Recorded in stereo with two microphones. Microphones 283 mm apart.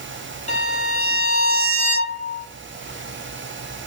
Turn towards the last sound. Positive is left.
turn(degrees=25)  # may be behind; listen again after turning